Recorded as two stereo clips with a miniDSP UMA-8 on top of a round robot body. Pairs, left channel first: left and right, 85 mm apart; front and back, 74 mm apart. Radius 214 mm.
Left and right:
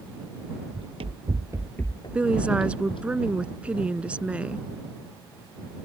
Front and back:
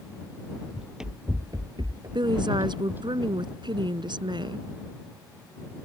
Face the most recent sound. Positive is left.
turn(degrees=-170)